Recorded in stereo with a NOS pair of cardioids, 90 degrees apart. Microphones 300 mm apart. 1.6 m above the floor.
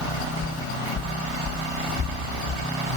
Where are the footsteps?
45° left, 5 m; by 3.0 s 25° left, 6.5 m.